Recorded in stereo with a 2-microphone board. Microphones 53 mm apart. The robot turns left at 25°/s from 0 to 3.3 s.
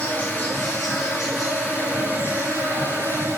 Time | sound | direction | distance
0.0 | an insect | 25° left | 6 m